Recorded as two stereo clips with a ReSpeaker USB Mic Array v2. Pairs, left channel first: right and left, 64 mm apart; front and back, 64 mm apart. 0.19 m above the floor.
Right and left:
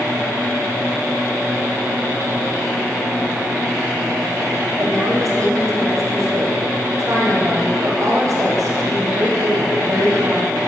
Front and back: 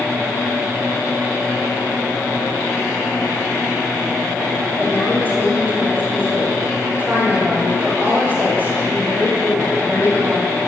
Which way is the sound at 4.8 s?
125° left.